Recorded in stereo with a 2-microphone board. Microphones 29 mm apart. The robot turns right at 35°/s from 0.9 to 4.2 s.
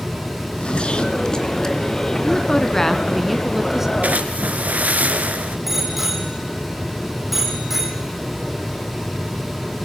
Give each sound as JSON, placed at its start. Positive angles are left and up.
{"t": 0.4, "sound": "a zipper", "side_deg": 40, "distance_m": 2.5}
{"t": 2.2, "sound": "a woman speaking", "azimuth_deg": 140, "distance_m": 2.5}
{"t": 4.0, "sound": "a splash", "side_deg": -60, "distance_m": 3.5}
{"t": 5.7, "sound": "a bicycle bell", "side_deg": -5, "distance_m": 5.5}